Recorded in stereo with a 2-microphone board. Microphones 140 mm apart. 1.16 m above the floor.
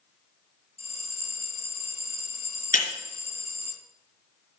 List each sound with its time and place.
0.8 s a bell: 50° left (ahead or behind), 2.5 m
2.7 s breaking glass: 75° left (ahead or behind), 3.5 m